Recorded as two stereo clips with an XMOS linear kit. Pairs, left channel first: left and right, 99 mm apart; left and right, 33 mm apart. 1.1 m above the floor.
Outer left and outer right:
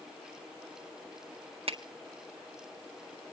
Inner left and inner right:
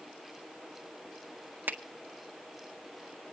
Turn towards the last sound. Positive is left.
turn(degrees=-65)  # may be behind; listen again after turning